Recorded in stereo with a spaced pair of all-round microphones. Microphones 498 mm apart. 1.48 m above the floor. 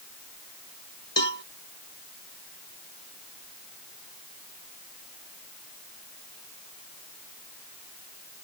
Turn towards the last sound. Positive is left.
turn(degrees=60)  # may be behind; listen again after turning